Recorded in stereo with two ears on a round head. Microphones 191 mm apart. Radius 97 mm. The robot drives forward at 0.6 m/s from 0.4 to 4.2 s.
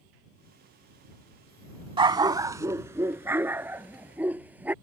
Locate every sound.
2.0 s a dog barking: 25° right (ahead or behind); by 4.7 s 10° right (ahead or behind)